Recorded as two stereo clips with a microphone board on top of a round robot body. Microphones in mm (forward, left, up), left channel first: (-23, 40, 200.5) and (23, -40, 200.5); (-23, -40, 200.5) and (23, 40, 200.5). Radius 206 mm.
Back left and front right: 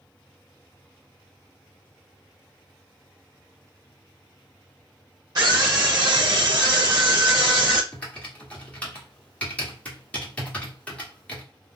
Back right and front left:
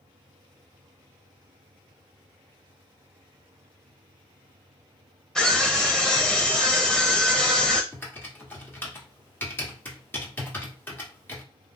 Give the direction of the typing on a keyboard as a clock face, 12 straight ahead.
6 o'clock.